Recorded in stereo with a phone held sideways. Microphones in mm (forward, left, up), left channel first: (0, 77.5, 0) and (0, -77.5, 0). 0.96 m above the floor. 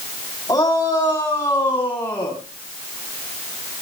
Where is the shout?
20° left (ahead or behind), 7.5 m; by 2.4 s 10° left (ahead or behind), 8 m.